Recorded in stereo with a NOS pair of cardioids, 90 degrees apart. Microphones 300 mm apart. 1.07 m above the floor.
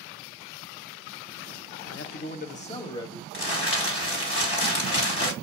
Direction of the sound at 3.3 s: 50° left.